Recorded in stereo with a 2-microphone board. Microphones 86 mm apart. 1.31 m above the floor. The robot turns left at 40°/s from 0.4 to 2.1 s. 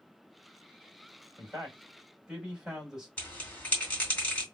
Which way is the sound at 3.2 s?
20° left (ahead or behind).